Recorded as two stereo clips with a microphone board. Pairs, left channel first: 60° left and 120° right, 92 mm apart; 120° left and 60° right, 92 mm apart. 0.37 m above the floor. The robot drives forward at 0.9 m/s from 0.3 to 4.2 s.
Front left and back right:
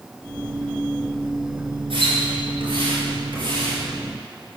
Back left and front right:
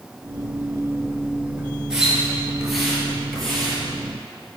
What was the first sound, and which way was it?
A splash, 140° right.